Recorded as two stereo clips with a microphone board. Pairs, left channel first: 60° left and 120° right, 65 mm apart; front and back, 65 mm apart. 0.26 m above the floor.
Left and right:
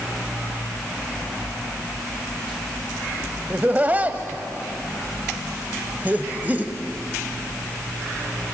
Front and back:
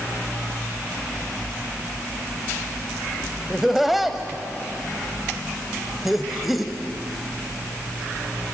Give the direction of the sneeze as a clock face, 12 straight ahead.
No sneeze in this recording.